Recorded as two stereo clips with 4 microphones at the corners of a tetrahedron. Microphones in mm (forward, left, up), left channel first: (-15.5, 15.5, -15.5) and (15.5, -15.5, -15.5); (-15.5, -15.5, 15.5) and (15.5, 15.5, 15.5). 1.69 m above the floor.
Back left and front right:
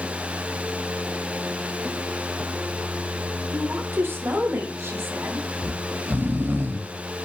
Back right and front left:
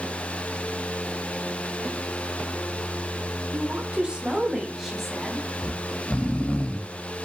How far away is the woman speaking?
About 1.3 m.